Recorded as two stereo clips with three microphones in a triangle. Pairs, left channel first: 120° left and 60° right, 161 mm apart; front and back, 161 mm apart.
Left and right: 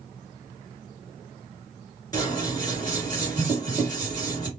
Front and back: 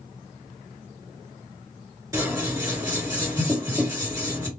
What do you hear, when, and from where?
2.1 s scissors: 145° left, 1.8 m